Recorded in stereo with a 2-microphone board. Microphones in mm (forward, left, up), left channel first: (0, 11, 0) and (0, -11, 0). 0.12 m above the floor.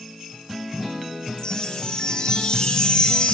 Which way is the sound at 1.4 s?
40° left (ahead or behind).